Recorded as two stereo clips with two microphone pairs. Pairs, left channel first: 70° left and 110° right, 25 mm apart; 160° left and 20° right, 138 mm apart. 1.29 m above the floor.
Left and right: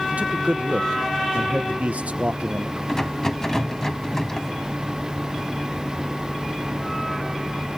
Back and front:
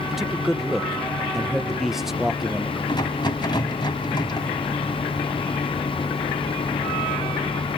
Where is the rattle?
125° left, 1.4 m.